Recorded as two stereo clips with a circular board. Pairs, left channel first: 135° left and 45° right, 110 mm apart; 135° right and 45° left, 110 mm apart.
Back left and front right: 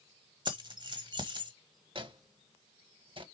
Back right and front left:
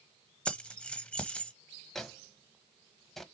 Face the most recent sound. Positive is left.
turn(degrees=-50)